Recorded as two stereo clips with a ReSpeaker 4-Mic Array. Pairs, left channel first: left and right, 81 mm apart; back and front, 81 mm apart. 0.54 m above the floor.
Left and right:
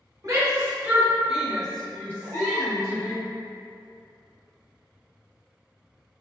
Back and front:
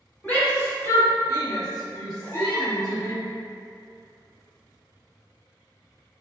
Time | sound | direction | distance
0.2 | a shout | 120° right | 1.0 m
2.2 | a baby crying | 165° right | 0.8 m